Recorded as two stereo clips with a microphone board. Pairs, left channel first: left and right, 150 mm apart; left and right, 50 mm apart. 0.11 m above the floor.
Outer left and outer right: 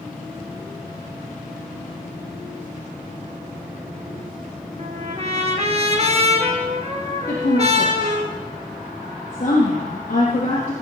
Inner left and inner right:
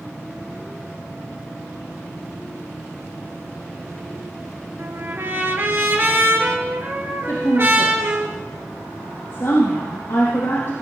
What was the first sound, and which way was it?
A trumpet, 45° right (ahead or behind).